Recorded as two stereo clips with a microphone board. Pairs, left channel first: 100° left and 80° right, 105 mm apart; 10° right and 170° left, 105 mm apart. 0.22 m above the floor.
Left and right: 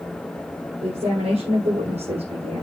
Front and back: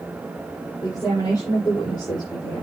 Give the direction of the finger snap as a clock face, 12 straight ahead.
I don't hear a finger snap.